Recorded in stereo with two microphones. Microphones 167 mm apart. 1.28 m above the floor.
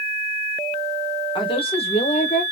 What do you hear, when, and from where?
1.4 s a woman speaking: 30° left (ahead or behind), 1.5 m; by 2.4 s 55° left (ahead or behind), 1.1 m